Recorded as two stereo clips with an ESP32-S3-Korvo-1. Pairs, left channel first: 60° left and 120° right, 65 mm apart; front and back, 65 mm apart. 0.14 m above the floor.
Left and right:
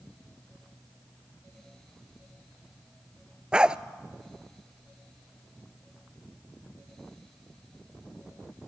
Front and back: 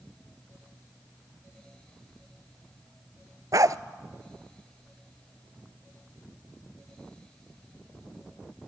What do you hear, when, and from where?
3.5 s a dog barking: 165° left, 0.5 m